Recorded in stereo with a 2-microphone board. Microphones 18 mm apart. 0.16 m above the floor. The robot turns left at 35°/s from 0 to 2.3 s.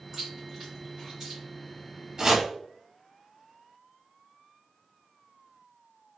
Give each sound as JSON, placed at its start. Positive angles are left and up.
{"t": 0.1, "sound": "chewing", "side_deg": -25, "distance_m": 1.6}
{"t": 2.2, "sound": "chopping", "side_deg": -35, "distance_m": 1.1}